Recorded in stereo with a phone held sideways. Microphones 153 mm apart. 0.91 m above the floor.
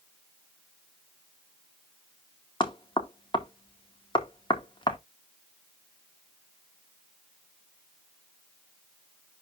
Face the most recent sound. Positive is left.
turn(degrees=30)  # may be behind; listen again after turning